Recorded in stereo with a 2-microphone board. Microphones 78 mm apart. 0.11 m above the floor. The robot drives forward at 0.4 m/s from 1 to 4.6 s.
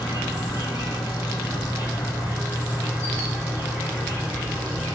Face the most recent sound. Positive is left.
turn(degrees=25)  # may be behind; listen again after turning